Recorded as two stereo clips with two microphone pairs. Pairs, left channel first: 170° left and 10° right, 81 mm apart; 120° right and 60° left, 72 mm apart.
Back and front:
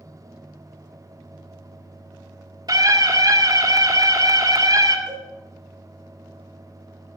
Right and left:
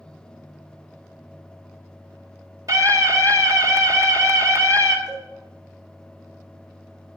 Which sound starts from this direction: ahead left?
A scream, at 2.7 s.